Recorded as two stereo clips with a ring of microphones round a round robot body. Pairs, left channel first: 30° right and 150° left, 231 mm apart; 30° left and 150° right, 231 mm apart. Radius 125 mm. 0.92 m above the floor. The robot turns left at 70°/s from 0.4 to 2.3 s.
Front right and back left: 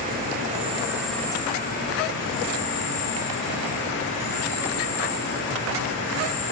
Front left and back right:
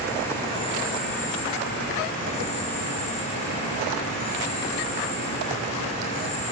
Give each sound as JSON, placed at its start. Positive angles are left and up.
{"t": 0.0, "sound": "an insect", "azimuth_deg": 105, "distance_m": 2.0}